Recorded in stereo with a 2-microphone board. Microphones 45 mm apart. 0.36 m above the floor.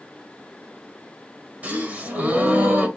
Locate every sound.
1.6 s a gasp: 30° right (ahead or behind), 1.8 m